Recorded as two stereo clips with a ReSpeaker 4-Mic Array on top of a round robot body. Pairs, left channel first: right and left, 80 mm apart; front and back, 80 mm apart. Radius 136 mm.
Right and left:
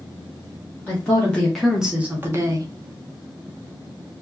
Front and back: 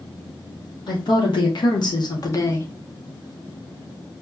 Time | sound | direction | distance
0.9 | a woman speaking | 25° right | 1.3 m